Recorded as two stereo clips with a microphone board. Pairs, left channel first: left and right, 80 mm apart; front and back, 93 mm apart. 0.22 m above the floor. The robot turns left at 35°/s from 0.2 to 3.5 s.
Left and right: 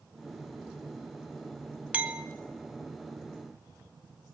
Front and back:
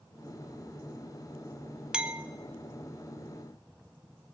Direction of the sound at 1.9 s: 115° right.